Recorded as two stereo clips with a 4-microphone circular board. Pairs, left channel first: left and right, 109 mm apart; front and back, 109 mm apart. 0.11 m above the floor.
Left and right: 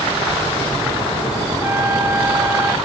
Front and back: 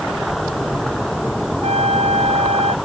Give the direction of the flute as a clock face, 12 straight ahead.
5 o'clock.